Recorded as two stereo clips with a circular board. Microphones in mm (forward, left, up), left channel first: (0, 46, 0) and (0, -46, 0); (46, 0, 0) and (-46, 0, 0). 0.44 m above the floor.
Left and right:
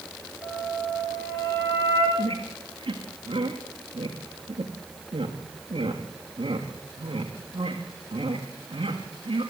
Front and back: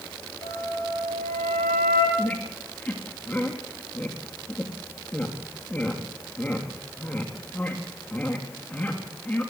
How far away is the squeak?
About 4 m.